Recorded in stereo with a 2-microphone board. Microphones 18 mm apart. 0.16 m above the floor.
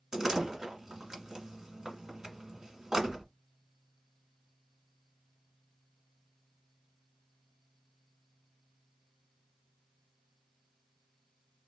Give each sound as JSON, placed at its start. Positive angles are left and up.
{"t": 0.1, "sound": "a door slam", "side_deg": -30, "distance_m": 1.3}